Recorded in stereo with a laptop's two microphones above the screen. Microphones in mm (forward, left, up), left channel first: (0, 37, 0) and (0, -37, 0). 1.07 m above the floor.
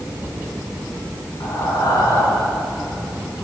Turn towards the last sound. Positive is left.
turn(degrees=75)  # may be behind; listen again after turning